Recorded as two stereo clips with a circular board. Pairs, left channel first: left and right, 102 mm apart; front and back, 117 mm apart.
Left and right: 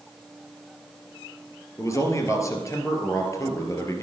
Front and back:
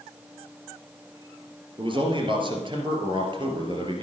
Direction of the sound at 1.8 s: 145° left.